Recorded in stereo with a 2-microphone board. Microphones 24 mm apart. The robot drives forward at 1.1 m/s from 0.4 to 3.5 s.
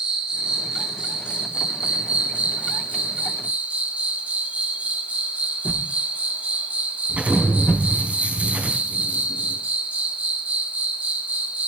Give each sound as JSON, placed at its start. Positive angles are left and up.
{"t": 0.0, "sound": "an insect", "side_deg": -35, "distance_m": 4.0}
{"t": 5.7, "sound": "a whoosh", "side_deg": 60, "distance_m": 1.5}
{"t": 7.1, "sound": "an explosion", "side_deg": -85, "distance_m": 3.5}